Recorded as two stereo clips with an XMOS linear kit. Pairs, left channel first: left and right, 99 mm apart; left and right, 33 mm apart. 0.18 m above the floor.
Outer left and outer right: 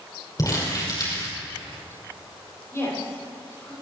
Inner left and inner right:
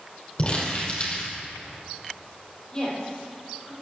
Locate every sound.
0.4 s crumpling: 35° left (ahead or behind), 6 m
2.7 s a woman speaking: 25° left (ahead or behind), 7 m